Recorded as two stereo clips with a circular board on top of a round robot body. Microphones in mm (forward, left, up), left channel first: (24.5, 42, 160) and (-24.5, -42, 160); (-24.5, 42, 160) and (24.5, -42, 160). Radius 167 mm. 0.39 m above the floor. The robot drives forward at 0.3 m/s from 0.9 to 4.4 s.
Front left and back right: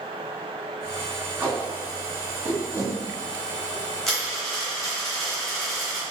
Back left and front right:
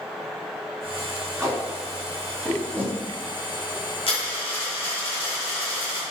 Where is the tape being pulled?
80° right, 1.6 m; by 4.0 s 130° right, 1.7 m.